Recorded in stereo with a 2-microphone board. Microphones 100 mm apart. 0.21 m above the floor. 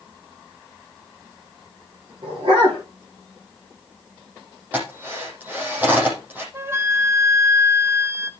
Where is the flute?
25° right (ahead or behind), 0.8 m.